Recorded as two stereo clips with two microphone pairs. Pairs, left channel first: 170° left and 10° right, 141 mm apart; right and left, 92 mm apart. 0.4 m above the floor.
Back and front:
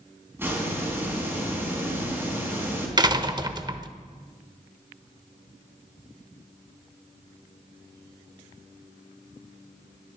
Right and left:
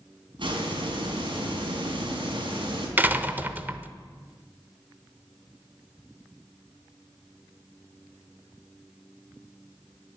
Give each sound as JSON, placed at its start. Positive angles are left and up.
{"t": 0.4, "sound": "a hiss", "azimuth_deg": 65, "distance_m": 4.0}
{"t": 3.0, "sound": "a door slam", "azimuth_deg": 30, "distance_m": 0.8}